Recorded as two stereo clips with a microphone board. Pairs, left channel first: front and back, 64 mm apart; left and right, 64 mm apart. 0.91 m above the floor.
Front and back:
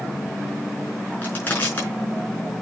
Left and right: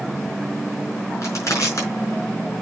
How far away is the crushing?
About 4.5 m.